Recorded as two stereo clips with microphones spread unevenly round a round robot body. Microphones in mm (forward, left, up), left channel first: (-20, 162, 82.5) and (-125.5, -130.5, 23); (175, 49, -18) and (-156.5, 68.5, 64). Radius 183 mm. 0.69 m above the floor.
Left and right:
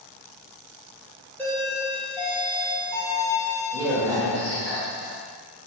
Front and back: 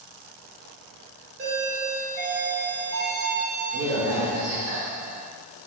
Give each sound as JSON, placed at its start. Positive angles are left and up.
{"t": 1.4, "sound": "a doorbell", "azimuth_deg": 175, "distance_m": 1.3}